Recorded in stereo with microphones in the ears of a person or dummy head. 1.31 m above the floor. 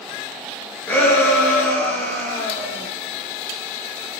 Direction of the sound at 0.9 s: 15° left (ahead or behind).